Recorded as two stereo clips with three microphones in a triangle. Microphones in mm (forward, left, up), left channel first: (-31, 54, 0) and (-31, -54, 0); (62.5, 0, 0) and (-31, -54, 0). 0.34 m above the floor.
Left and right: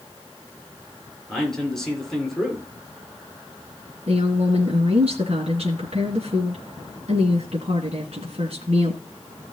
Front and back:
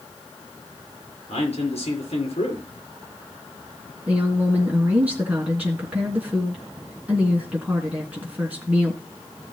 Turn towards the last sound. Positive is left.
turn(degrees=-75)